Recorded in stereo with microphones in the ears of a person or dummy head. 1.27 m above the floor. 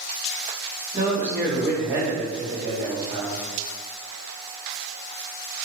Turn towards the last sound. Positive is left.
turn(degrees=-20)  # may be behind; listen again after turning